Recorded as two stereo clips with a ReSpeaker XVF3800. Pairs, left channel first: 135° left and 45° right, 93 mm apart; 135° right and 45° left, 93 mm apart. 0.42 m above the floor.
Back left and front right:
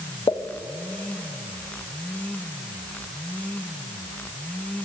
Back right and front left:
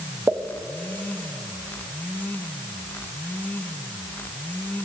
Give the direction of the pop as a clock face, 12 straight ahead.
8 o'clock.